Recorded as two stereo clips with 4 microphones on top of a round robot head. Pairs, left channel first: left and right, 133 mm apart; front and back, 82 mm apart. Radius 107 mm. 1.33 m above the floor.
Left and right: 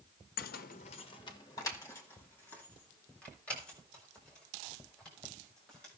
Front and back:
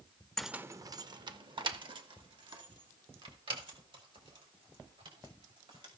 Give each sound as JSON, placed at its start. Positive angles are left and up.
{"t": 0.4, "sound": "keys jangling", "azimuth_deg": 85, "distance_m": 0.5}